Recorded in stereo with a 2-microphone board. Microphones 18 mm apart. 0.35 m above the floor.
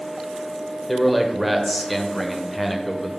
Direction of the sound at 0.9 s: Centre (ahead or behind).